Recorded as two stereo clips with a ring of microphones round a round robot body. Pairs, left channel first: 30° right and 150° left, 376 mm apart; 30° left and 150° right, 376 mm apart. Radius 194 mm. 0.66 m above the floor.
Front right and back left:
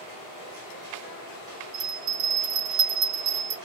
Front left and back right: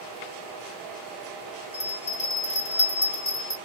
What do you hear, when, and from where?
1.7 s a bell: 105° left, 2.5 m